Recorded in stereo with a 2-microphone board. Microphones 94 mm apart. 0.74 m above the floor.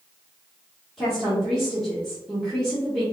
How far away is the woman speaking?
About 1.5 m.